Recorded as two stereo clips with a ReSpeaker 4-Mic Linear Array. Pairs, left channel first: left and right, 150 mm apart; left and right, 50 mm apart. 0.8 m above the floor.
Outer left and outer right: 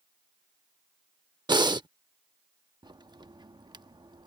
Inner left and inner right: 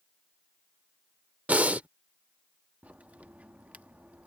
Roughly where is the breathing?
Right.